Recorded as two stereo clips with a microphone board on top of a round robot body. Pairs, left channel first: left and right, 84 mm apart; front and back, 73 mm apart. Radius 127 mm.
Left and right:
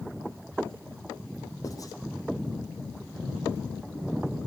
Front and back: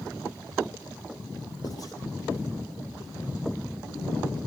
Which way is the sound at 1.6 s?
40° left.